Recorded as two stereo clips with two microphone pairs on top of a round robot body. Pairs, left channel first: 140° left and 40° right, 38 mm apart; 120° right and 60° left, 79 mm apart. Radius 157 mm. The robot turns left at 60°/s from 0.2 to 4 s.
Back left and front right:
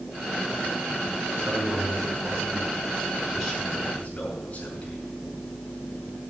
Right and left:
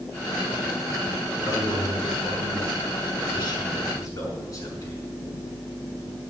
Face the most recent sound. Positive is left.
turn(degrees=-165)